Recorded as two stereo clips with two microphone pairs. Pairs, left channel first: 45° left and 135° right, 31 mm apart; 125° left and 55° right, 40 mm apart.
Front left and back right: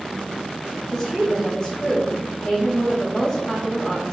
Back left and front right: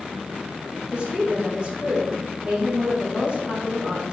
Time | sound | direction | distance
0.9 | a woman speaking | 20° right | 1.3 m